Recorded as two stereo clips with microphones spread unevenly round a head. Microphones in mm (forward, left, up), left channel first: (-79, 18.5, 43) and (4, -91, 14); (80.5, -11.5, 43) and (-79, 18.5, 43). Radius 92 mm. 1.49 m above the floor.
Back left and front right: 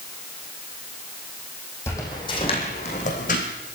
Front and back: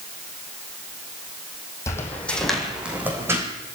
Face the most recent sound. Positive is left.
turn(degrees=95)